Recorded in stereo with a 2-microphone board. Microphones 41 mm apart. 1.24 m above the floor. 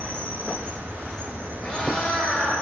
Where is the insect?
50° right (ahead or behind), 0.9 m.